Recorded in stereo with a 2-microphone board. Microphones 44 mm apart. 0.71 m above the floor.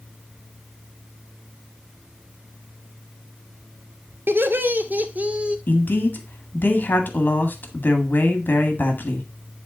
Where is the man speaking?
45° left (ahead or behind), 1.6 m.